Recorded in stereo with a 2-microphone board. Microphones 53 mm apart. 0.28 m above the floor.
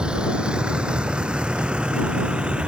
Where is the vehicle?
15° right (ahead or behind); by 2.7 s 20° right (ahead or behind).